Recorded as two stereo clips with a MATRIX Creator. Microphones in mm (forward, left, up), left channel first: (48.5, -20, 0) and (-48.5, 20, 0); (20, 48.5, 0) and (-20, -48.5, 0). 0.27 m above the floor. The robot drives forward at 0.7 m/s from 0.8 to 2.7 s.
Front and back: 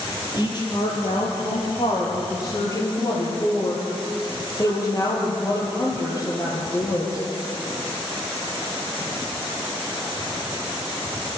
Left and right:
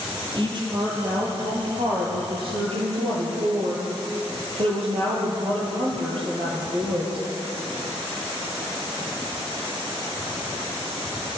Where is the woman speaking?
70° right, 7 m; by 7.2 s 80° right, 6.5 m.